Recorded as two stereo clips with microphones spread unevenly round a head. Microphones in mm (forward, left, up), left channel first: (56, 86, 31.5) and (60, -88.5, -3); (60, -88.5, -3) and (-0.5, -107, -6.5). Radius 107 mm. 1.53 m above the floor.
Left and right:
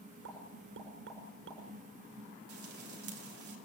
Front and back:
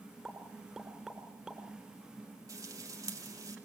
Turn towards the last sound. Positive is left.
turn(degrees=-135)